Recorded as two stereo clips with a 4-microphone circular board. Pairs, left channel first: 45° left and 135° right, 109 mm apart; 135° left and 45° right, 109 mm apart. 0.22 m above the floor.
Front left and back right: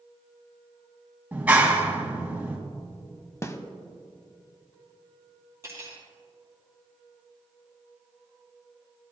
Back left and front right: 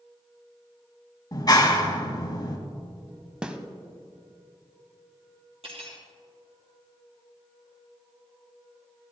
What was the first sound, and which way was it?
A clap, 155° left.